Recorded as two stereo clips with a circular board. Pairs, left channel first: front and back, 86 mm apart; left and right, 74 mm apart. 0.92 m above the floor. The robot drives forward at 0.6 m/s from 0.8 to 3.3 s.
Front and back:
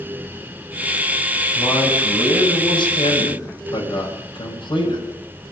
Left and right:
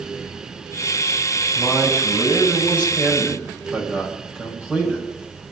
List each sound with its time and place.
1.6 s a man speaking: 25° right, 6.5 m